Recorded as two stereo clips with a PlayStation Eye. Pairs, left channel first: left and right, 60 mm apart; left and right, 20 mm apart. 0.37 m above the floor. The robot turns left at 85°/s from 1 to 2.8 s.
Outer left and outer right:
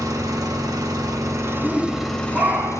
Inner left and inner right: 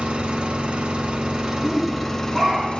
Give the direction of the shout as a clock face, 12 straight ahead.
12 o'clock.